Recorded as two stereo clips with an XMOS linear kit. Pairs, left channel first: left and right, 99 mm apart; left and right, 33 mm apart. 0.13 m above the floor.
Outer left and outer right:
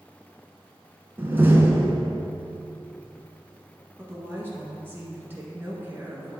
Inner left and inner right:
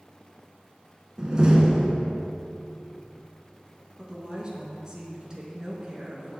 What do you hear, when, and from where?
1.2 s a door slam: 25° right (ahead or behind), 0.9 m
4.0 s a woman speaking: 20° right (ahead or behind), 1.3 m